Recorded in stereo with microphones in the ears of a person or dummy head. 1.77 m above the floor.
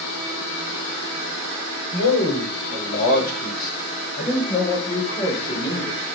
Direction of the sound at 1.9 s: 60° left (ahead or behind).